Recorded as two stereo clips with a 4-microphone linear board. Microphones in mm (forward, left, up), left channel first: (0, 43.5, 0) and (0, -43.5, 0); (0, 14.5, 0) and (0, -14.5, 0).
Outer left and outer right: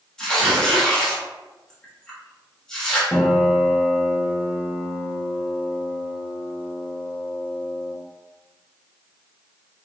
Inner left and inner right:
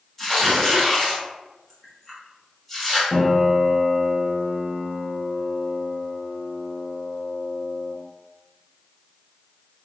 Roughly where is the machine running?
No machine running in this recording.